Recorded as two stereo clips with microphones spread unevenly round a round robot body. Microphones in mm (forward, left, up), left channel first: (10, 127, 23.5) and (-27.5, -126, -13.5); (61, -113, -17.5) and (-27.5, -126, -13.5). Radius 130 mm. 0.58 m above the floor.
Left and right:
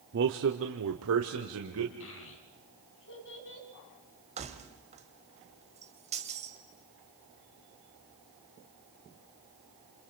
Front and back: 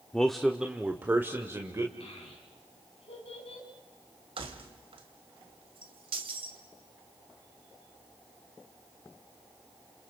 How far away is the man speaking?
About 1.1 m.